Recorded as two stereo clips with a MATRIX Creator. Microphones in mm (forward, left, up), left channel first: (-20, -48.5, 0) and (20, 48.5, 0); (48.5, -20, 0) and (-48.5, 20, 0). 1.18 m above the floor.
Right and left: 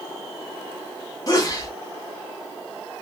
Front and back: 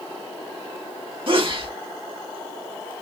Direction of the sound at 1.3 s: 170° right.